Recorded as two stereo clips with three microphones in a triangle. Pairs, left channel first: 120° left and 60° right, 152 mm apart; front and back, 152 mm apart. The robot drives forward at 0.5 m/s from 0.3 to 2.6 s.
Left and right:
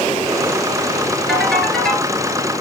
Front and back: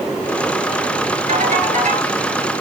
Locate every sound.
1.3 s a ringtone: 150° right, 1.8 m; by 2.1 s 155° right, 2 m